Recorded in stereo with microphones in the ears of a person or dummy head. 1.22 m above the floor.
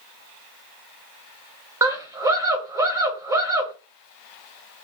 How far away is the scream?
About 1.6 m.